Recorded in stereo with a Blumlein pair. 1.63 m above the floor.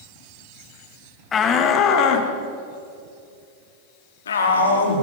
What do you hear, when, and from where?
1.3 s a shout: 20° left, 2.5 m; by 5.0 s 70° left, 5 m